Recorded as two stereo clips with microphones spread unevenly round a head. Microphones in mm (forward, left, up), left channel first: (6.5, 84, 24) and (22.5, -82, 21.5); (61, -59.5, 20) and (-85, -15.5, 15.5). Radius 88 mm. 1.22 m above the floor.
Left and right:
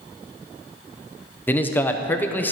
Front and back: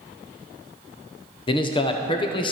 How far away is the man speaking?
About 0.7 m.